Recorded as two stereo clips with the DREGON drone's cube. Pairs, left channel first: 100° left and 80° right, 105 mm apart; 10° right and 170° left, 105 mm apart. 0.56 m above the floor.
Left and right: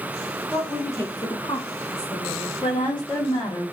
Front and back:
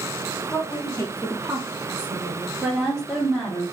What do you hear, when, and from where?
0.5 s a woman speaking: 20° left, 1.5 m; by 2.5 s 155° left, 1.8 m
2.6 s a woman speaking: 75° left, 1.9 m